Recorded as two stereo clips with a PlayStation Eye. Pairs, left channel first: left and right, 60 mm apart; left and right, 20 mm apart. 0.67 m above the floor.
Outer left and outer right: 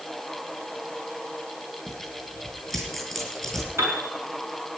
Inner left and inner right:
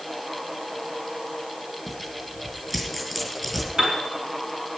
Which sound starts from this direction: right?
A piano, at 3.8 s.